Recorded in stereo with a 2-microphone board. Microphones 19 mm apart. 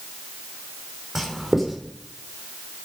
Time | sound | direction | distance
1.1 | writing | 20° right (ahead or behind) | 4.5 m